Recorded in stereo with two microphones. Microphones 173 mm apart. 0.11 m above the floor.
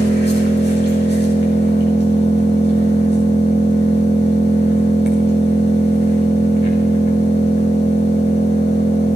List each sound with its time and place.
0.0 s an engine running: 75° left (ahead or behind), 5 m